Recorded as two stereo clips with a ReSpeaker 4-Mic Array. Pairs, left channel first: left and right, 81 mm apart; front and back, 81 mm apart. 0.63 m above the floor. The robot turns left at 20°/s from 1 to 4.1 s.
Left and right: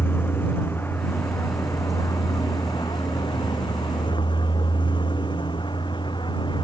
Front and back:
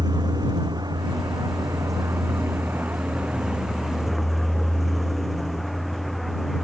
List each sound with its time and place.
0.0 s a vehicle: 150° left; by 6.7 s 90° left